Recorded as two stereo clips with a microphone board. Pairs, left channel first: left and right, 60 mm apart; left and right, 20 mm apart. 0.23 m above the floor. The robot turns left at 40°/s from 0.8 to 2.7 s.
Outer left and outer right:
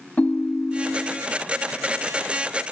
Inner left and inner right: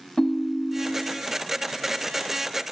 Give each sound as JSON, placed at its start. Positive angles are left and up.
{"t": 0.2, "sound": "a ringtone", "side_deg": 25, "distance_m": 0.5}